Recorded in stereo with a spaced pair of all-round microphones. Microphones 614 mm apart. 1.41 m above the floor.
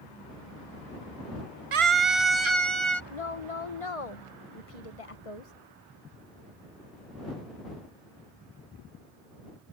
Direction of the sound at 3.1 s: 65° left (ahead or behind).